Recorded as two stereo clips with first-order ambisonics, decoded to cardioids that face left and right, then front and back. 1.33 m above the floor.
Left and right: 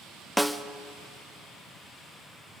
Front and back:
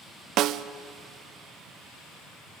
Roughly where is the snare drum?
Behind.